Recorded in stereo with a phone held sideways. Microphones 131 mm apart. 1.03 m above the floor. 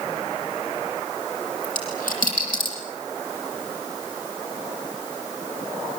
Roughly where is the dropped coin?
Left.